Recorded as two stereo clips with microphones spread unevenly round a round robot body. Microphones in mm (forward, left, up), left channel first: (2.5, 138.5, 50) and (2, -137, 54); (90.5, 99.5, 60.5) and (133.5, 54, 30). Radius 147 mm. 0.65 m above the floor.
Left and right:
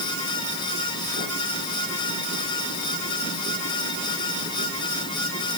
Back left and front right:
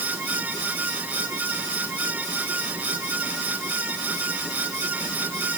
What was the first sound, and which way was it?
Only background noise.